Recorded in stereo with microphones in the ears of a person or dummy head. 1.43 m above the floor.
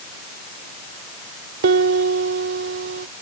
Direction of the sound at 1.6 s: 60° right (ahead or behind).